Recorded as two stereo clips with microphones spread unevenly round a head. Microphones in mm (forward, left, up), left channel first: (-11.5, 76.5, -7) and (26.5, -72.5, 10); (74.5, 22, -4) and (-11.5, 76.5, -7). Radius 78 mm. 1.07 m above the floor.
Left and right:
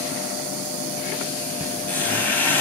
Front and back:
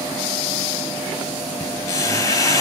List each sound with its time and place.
1.6 s a squeak: 20° left, 2 m